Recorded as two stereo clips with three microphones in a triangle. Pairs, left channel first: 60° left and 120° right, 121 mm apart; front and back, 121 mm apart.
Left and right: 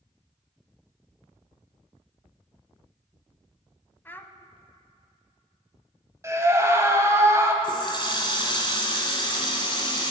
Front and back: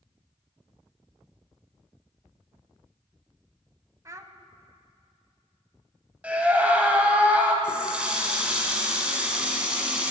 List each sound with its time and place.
4.0 s a child speaking: 125° left, 0.7 m
6.2 s a scream: 120° right, 1.2 m
7.6 s a running tap: 100° left, 1.5 m